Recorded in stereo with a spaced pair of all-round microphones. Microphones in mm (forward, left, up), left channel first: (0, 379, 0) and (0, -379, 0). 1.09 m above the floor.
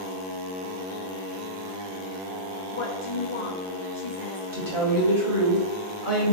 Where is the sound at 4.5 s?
25° right (ahead or behind), 1.7 m.